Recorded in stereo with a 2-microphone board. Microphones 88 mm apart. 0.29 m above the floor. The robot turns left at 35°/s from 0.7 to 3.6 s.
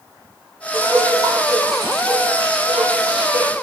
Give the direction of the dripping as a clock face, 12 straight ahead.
1 o'clock.